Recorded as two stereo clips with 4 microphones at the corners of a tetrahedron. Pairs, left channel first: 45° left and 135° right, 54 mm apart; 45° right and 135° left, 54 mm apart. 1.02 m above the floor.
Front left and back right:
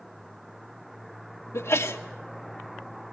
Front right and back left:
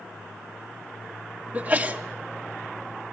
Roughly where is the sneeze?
Left.